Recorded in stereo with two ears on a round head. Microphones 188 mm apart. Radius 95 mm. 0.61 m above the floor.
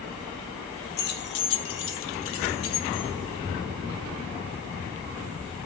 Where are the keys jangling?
50° left (ahead or behind), 1.0 m; by 3.1 s 75° left (ahead or behind), 1.8 m.